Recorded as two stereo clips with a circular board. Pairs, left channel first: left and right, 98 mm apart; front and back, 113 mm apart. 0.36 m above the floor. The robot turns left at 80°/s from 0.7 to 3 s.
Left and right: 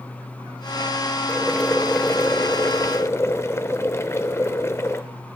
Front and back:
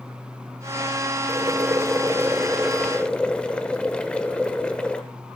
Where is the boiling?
155° right, 0.7 m; by 5.0 s 70° left, 0.7 m.